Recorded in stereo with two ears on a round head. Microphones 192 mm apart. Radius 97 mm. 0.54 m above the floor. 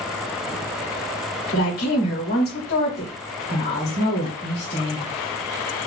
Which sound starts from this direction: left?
A woman speaking, at 1.5 s.